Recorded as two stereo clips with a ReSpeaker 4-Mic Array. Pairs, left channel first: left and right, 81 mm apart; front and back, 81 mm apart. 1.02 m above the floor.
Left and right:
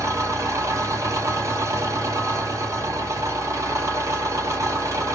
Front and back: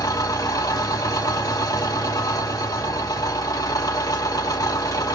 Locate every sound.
0.0 s an engine running: 45° right, 1.9 m